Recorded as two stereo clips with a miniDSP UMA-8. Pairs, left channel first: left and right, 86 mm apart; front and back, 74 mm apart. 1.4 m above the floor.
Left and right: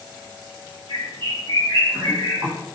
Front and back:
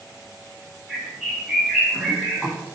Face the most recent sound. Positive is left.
turn(degrees=-90)